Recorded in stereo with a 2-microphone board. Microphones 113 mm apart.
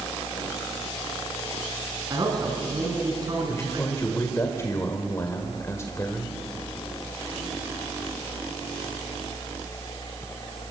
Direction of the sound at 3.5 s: 25° left (ahead or behind).